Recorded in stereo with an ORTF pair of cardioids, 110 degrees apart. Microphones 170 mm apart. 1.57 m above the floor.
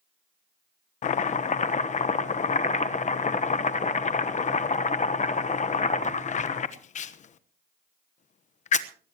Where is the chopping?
45° left, 1.1 m.